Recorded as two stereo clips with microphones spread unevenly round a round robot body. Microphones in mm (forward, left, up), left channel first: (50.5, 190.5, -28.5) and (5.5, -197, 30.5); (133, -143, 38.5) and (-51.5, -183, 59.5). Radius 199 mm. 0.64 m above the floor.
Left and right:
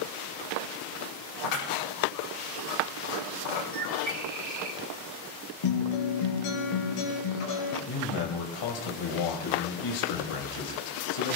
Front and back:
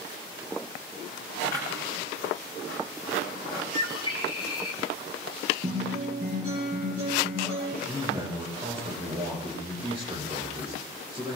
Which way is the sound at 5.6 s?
125° left.